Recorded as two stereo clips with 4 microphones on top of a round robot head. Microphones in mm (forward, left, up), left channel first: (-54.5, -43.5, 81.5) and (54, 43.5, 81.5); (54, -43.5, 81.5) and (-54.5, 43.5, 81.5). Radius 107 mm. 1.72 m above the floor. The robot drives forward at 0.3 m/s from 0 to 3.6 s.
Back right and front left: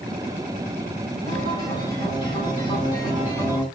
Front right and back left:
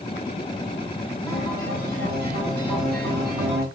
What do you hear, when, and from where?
1.3 s a guitar: 150° left, 7 m